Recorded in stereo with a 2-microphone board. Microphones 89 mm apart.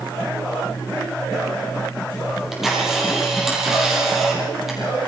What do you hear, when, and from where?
2.3 s a camera shutter: 5° right (ahead or behind), 6.5 m